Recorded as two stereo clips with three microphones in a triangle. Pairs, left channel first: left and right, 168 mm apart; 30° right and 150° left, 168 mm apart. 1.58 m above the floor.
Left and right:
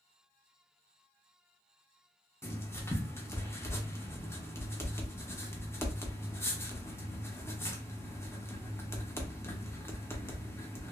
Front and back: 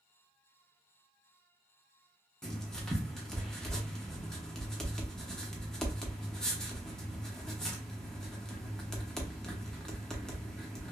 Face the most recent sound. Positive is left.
turn(degrees=50)